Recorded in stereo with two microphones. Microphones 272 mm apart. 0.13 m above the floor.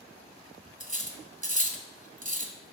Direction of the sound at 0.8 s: 30° right (ahead or behind).